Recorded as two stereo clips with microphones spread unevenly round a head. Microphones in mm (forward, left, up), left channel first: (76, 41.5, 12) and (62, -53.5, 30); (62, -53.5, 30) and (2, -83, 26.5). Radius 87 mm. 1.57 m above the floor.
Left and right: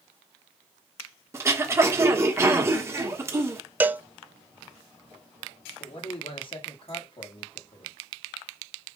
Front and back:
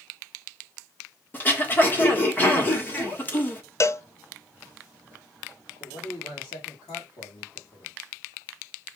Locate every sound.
1.3 s throat clearing: 35° right, 1.5 m
3.8 s a cowbell: 20° right, 0.5 m
5.8 s a man speaking: 50° left, 1.9 m